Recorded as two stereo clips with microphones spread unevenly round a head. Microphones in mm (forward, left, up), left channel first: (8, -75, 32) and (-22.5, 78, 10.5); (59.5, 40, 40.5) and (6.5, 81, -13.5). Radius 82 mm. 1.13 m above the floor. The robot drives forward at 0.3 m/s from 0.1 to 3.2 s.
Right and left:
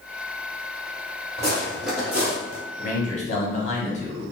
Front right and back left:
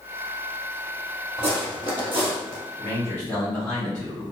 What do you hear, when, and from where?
1.4 s footsteps: 155° right, 1.6 m; by 2.6 s 70° left, 1.1 m
2.8 s a man speaking: 120° right, 0.9 m; by 4.2 s 125° right, 1.0 m